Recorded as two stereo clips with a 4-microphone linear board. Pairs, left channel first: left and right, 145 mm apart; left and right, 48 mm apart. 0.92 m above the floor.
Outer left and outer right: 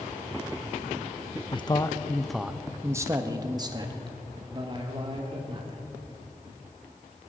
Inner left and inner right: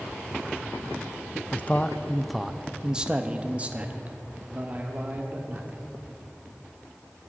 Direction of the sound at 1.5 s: 35° left (ahead or behind).